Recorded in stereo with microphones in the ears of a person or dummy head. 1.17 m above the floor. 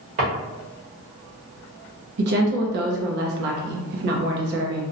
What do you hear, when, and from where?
0.2 s a drawer: 45° right (ahead or behind), 1.1 m
2.2 s a woman speaking: 55° right (ahead or behind), 0.5 m